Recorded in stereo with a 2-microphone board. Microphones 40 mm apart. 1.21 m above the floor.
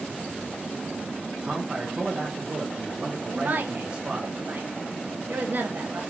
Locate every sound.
1.4 s a man speaking: 30° right (ahead or behind), 0.5 m
3.3 s a woman speaking: 50° right (ahead or behind), 0.6 m